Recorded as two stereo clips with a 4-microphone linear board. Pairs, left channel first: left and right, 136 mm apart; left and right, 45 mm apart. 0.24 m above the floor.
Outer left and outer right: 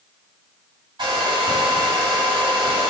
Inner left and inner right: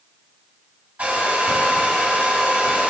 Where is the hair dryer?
35° right (ahead or behind), 2 m.